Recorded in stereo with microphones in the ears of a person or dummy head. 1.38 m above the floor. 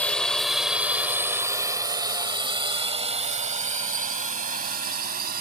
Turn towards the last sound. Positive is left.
turn(degrees=-50)  # may be behind; listen again after turning